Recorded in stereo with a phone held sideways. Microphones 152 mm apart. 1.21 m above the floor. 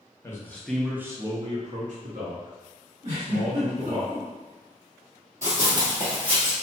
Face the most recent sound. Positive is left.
turn(degrees=-45)  # may be behind; listen again after turning